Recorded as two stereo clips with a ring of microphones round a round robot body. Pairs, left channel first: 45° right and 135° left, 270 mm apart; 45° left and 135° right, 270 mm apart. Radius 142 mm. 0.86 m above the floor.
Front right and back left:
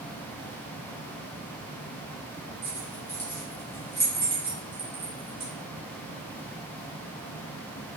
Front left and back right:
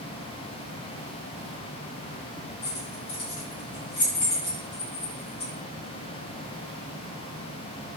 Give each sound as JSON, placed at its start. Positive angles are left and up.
{"t": 2.6, "sound": "keys jangling", "azimuth_deg": 35, "distance_m": 2.0}